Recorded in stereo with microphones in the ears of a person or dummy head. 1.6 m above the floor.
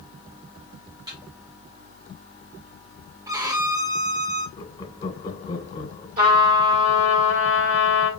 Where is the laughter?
25° left (ahead or behind), 1.2 m.